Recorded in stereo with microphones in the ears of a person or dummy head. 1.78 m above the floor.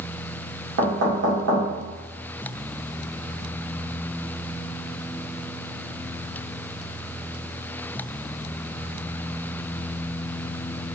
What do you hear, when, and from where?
0.8 s knocking: 70° right (ahead or behind), 1.9 m